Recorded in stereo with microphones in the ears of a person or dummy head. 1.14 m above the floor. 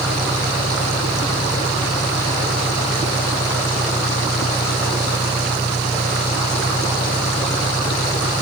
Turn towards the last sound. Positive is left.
turn(degrees=15)  # may be behind; listen again after turning